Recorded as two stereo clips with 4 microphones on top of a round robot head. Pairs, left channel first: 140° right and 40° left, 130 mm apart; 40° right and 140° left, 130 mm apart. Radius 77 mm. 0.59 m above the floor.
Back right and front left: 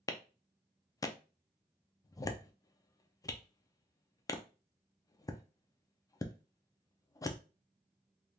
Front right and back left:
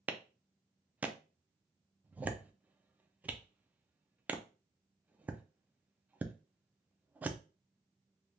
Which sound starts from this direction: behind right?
A clap, at 0.1 s.